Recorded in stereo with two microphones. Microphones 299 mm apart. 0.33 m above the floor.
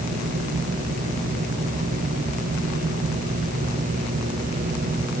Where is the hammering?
No hammering in this recording.